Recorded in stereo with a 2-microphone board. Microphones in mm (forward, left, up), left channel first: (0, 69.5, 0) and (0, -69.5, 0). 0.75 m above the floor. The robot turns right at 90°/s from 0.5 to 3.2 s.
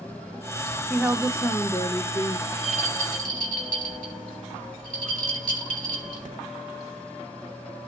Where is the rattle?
25° right (ahead or behind), 3 m; by 6.3 s 85° right, 3 m.